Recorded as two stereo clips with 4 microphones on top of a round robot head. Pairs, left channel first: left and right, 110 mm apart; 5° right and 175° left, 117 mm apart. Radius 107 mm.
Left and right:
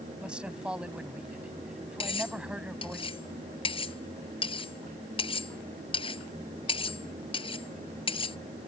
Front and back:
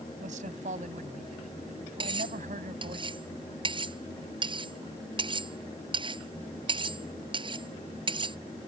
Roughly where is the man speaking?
Behind.